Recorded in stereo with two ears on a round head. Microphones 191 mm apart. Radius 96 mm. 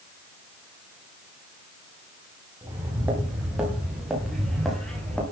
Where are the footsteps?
10° right (ahead or behind), 8.5 m; by 5.2 s 5° left (ahead or behind), 8 m.